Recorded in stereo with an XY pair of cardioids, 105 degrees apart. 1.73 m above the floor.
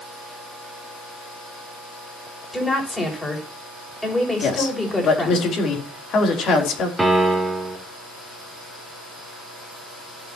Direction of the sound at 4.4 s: 60° left.